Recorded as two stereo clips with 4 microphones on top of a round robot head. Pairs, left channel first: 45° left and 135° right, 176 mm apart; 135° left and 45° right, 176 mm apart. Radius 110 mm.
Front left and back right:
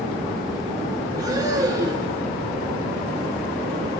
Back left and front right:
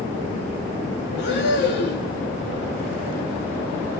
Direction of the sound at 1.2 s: 155° left.